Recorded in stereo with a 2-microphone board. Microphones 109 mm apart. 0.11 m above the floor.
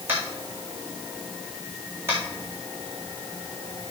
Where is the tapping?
20° right (ahead or behind), 3.5 m.